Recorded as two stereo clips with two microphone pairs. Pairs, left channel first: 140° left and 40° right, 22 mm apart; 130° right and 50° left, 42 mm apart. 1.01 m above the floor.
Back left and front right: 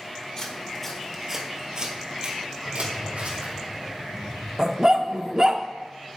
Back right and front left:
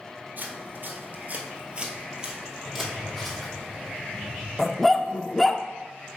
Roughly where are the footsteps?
Left.